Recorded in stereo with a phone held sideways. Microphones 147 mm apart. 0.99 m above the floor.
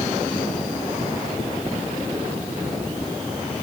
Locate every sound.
Only background noise.